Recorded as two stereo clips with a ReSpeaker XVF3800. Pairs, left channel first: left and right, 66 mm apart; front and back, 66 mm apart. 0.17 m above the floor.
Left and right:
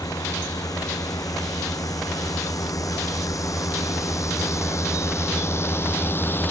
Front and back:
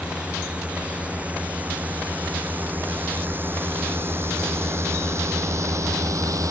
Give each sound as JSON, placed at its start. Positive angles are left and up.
{"t": 0.0, "sound": "a drone", "azimuth_deg": 110}